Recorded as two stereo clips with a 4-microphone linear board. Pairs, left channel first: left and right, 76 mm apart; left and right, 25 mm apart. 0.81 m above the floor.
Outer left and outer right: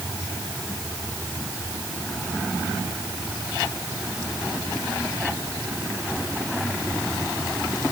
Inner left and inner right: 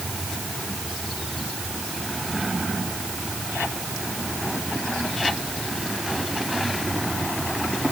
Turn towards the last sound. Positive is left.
No sound to turn to.